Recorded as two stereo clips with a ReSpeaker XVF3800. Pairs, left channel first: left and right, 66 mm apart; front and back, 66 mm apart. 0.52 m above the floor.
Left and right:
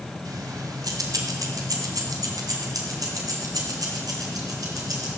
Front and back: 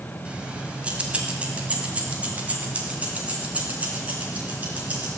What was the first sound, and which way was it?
Keys jangling, 110° right.